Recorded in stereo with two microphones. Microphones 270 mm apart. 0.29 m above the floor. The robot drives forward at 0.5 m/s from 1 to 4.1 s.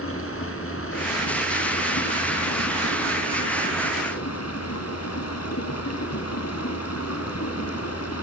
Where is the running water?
55° left (ahead or behind), 3 m; by 8.2 s 70° left (ahead or behind), 3 m.